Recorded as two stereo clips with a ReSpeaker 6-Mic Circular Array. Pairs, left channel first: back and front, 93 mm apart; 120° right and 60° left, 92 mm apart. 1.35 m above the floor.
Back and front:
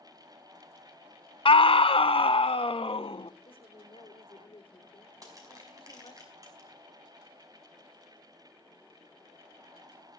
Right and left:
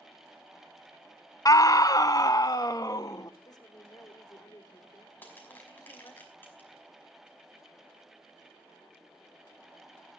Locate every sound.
1.4 s a scream: 170° right, 0.5 m
3.5 s a woman speaking: 170° right, 3.5 m
5.2 s crushing: 50° right, 5.5 m